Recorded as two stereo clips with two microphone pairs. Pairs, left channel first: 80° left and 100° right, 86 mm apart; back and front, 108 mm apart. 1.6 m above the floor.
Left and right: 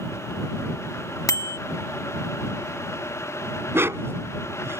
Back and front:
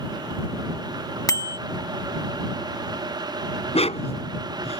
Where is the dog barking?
165° right.